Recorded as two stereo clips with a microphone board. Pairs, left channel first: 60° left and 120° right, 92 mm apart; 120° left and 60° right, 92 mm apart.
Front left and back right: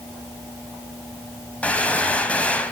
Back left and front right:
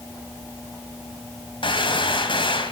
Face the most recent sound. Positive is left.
turn(degrees=135)